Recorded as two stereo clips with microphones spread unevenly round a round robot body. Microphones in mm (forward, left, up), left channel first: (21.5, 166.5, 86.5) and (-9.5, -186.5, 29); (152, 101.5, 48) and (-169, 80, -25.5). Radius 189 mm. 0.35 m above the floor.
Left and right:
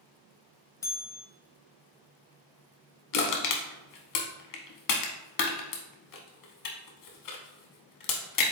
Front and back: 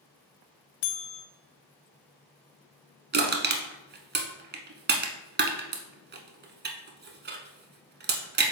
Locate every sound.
0.8 s a bell: straight ahead, 0.5 m
3.1 s crushing: 120° left, 0.9 m